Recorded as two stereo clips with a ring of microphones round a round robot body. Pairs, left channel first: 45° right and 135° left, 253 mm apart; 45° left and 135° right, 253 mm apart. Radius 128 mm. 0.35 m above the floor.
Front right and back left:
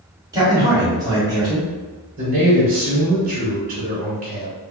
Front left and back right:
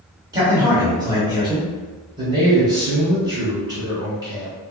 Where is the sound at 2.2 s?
160° left, 1.1 m.